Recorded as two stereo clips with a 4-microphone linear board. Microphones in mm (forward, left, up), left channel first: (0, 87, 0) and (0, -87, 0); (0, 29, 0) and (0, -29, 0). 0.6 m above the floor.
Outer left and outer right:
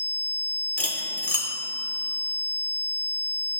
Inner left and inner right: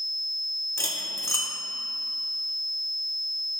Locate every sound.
0.8 s cutlery clinking: 50° left (ahead or behind), 0.8 m